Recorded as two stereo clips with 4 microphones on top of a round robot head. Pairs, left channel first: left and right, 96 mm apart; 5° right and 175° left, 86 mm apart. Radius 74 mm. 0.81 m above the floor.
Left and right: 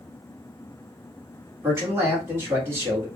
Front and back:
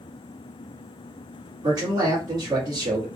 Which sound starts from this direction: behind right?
A man speaking, at 1.6 s.